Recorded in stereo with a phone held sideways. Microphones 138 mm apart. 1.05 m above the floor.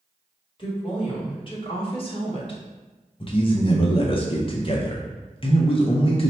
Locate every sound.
0.6 s a woman speaking: 35° left (ahead or behind), 1.6 m; by 2.6 s 40° left (ahead or behind), 0.9 m
3.2 s a man speaking: 40° left (ahead or behind), 0.6 m